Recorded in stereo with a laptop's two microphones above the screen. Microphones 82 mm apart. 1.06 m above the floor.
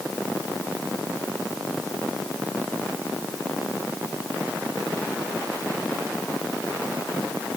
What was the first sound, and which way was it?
Only background noise.